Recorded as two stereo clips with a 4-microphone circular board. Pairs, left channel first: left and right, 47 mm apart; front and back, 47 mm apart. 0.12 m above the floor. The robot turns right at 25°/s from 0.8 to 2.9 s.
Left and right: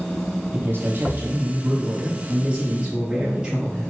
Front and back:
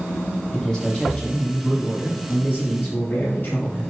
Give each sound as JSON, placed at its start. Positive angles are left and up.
{"t": 0.5, "sound": "a man speaking", "azimuth_deg": -70, "distance_m": 3.0}